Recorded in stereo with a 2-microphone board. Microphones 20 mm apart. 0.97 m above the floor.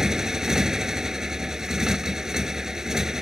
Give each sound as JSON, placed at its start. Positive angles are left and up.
{"t": 0.0, "sound": "a motorcycle", "side_deg": -30}